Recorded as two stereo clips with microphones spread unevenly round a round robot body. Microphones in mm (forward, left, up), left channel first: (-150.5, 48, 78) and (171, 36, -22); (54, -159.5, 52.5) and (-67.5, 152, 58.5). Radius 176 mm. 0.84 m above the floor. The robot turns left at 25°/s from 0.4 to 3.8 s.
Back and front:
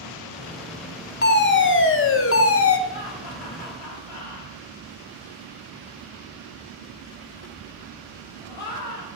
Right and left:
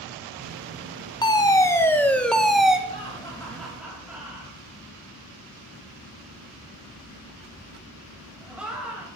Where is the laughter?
140° right, 6 m; by 9.1 s 160° right, 6 m.